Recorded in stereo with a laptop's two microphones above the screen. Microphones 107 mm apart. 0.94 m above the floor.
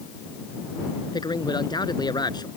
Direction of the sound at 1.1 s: 40° left (ahead or behind).